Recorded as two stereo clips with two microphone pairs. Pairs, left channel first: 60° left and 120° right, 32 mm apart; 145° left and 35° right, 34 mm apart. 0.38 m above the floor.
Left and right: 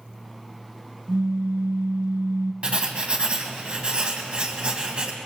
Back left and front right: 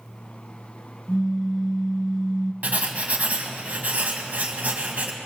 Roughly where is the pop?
Behind right.